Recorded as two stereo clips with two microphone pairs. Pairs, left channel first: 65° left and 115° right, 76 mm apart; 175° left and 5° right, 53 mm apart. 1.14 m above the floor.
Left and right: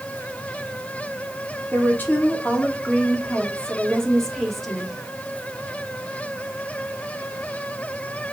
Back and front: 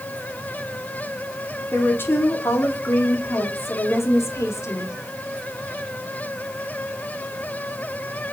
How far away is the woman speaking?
About 3.5 m.